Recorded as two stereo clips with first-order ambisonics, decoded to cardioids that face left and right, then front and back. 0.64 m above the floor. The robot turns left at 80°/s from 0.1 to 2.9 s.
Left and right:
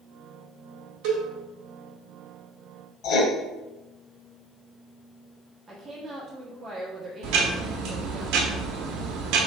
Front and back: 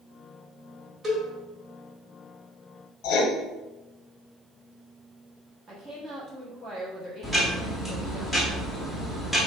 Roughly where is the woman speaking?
Behind right.